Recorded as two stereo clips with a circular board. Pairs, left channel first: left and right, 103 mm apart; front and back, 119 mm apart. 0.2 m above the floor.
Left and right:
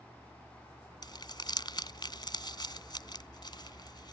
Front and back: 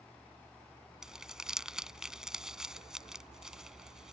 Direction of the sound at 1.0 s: 100° left.